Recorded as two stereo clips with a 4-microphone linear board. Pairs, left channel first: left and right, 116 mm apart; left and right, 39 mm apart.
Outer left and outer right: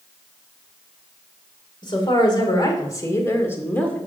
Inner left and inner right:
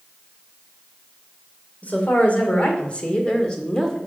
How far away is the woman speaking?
About 2.5 m.